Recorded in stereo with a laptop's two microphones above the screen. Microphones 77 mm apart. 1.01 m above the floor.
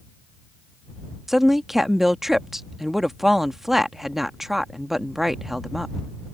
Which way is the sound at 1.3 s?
5° right (ahead or behind).